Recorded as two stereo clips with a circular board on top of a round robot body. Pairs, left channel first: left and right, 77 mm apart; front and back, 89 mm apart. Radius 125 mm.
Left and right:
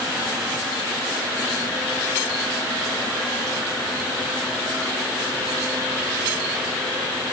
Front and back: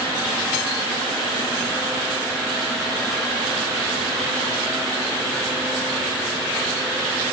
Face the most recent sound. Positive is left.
No sound to turn to.